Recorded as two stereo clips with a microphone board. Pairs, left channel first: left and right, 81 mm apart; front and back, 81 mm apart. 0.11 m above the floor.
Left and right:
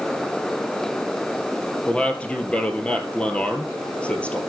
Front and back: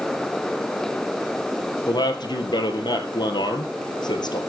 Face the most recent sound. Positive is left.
turn(degrees=15)